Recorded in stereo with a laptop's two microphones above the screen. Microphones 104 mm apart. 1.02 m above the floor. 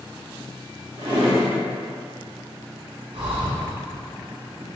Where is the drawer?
70° right (ahead or behind), 1.4 m.